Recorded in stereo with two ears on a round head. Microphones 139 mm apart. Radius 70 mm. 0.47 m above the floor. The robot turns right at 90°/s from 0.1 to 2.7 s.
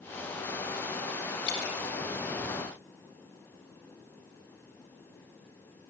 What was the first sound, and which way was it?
Dripping, 65° left (ahead or behind).